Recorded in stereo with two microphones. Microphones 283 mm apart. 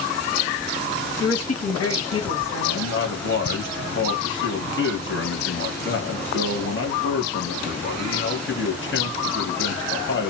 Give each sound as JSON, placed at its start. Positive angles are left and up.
{"t": 1.2, "sound": "a woman speaking", "side_deg": 55, "distance_m": 1.2}
{"t": 2.6, "sound": "a man speaking", "side_deg": 45, "distance_m": 1.1}